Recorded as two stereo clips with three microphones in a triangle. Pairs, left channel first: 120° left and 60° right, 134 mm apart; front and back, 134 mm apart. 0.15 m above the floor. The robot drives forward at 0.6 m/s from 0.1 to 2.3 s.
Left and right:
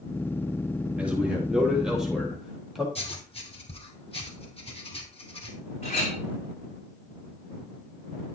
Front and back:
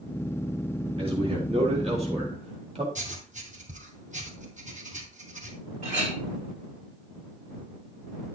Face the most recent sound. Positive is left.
turn(degrees=155)